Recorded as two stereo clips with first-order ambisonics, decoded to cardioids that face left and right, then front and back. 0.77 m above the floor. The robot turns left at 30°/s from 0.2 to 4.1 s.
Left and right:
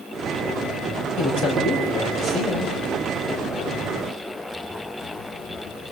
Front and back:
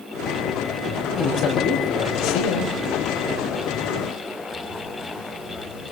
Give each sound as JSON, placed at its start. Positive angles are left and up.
{"t": 1.2, "sound": "a man speaking", "azimuth_deg": 55, "distance_m": 5.5}